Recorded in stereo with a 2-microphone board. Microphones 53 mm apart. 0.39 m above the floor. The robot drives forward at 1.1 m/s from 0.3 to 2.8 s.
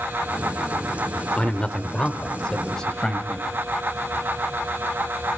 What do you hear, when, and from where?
1.4 s a man speaking: 25° left (ahead or behind), 1.1 m; by 3.5 s 15° left (ahead or behind), 2 m